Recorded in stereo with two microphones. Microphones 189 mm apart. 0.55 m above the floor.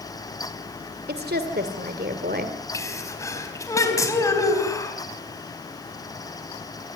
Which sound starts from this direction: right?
A woman speaking, at 1.1 s.